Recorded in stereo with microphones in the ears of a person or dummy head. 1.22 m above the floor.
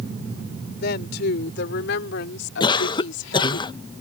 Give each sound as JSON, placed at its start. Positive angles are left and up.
{"t": 0.8, "sound": "a woman speaking", "side_deg": 55}
{"t": 2.6, "sound": "a cough", "side_deg": 25}